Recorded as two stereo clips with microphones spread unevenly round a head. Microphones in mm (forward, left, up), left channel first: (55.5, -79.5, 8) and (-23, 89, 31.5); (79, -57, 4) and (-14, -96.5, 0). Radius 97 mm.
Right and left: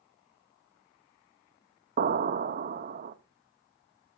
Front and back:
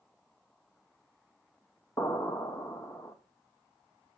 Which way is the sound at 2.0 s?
90° left.